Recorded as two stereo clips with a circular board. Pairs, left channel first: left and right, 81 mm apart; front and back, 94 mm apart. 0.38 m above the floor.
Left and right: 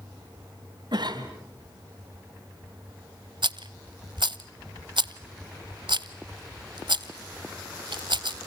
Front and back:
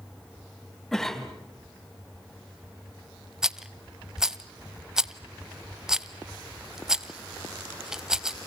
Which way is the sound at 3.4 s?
95° right.